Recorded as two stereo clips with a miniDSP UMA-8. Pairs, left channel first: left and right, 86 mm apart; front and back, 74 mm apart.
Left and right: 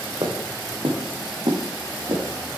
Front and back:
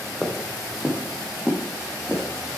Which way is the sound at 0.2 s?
95° right.